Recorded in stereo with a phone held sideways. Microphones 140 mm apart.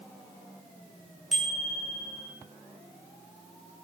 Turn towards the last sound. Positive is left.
turn(degrees=0)  # may be behind; listen again after turning